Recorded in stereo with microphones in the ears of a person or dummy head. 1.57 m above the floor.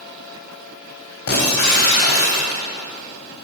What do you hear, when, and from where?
1.3 s breaking glass: 50° left (ahead or behind), 3.5 m